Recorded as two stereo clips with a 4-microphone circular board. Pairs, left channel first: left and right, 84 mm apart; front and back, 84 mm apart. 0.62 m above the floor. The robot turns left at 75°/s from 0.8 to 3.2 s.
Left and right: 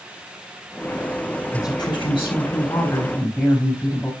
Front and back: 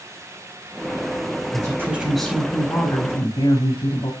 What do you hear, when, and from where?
1.5 s a woman speaking: 135° left, 4.5 m; by 4.1 s 10° left, 4.5 m